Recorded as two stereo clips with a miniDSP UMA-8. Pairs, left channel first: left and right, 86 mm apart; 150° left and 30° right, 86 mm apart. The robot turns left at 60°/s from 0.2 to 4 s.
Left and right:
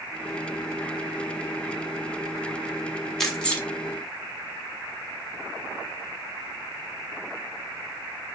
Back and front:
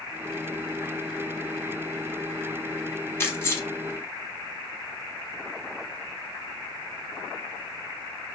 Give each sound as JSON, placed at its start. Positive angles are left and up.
{"t": 3.2, "sound": "keys jangling", "azimuth_deg": 170, "distance_m": 0.8}